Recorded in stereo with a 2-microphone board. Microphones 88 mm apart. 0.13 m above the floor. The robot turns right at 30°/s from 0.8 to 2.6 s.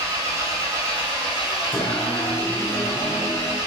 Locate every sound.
0.0 s an engine running: 25° right, 1.3 m; by 3.7 s 30° left, 1.3 m
1.7 s singing: 70° left (ahead or behind), 1.2 m; by 3.6 s 60° left (ahead or behind), 1.2 m